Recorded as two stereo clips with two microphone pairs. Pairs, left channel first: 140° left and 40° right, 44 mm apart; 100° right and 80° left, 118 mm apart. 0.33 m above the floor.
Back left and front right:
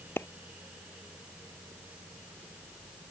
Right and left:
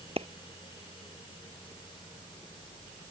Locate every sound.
0.2 s a clap: 115° left